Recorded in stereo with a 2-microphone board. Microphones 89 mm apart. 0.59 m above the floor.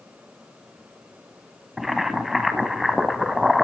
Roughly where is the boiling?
Centre.